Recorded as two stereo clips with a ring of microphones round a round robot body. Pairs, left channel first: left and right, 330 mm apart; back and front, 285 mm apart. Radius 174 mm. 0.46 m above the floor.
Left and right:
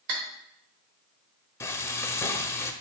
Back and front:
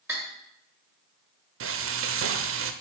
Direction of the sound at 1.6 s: 10° left.